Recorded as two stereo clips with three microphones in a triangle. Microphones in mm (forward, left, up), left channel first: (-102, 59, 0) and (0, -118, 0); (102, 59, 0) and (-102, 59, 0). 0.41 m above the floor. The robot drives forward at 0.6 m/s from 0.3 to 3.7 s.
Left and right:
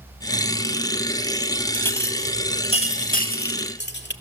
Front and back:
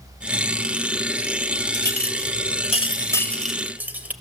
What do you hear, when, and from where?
1.7 s a clink: 40° left, 1.4 m; by 4.1 s 100° left, 1.0 m